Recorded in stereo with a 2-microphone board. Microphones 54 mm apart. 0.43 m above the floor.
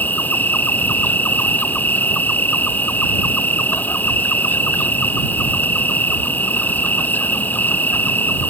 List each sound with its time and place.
0.0 s an insect: 30° left (ahead or behind)